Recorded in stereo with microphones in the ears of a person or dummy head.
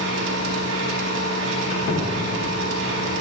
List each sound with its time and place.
0.0 s a machine running: 80° right, 1.0 m
1.6 s a squeak: 50° left (ahead or behind), 1.1 m